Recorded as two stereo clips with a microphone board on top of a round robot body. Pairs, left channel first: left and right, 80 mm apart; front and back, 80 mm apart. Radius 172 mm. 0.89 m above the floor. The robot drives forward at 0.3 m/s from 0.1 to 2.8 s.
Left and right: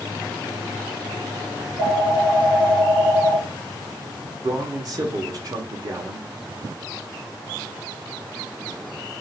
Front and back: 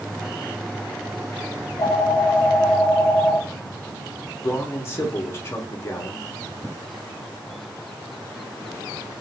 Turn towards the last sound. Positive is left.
turn(degrees=-55)